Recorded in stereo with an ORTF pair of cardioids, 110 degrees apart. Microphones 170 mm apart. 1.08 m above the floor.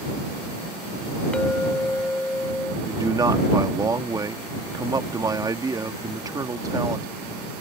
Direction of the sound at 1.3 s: 5° left.